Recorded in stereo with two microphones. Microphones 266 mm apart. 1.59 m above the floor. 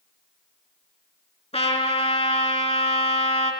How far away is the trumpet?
About 4 m.